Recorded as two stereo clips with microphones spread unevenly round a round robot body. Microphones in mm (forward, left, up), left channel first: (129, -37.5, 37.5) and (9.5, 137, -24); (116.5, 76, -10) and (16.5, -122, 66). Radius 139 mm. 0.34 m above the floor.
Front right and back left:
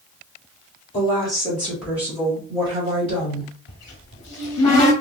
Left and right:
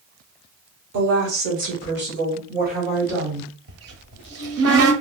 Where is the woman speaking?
125° right, 1.1 m; by 3.5 s 175° left, 2 m.